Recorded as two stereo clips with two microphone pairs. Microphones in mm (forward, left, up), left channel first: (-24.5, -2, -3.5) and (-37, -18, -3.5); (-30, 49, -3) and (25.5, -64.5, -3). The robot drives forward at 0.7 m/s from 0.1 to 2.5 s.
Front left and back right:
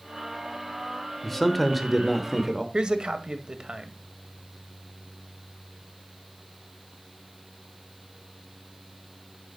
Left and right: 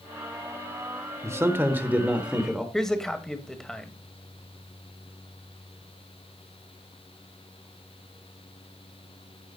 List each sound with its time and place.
1.2 s a man speaking: 25° right, 1.4 m; by 2.6 s 140° right, 1.3 m
2.7 s a man speaking: 160° right, 1.6 m